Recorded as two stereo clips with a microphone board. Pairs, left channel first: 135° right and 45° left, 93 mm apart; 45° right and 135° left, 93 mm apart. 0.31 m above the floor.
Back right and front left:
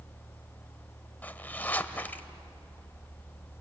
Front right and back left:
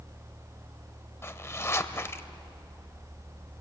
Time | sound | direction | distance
1.2 | a zipper | 80° right | 0.9 m